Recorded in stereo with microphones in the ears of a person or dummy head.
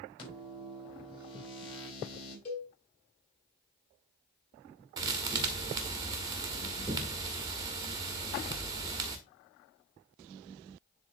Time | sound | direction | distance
0.2 | a microwave | 30° left (ahead or behind) | 5 m
2.5 | a cowbell | 40° left (ahead or behind) | 2.5 m
5.0 | a thud | 25° right (ahead or behind) | 1.3 m